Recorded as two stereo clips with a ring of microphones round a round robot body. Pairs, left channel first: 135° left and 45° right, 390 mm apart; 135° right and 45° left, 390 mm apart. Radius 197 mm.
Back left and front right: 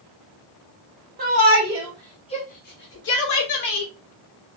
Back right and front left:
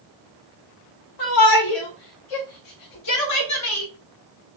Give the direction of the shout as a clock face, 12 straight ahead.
4 o'clock.